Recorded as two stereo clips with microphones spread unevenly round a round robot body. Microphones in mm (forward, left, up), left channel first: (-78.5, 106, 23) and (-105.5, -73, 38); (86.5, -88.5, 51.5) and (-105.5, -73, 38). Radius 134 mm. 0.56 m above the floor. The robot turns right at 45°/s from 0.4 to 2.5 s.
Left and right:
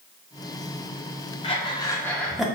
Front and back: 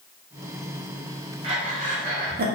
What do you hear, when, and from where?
1.4 s breathing: 125° left, 1.0 m; by 2.5 s 170° left, 1.0 m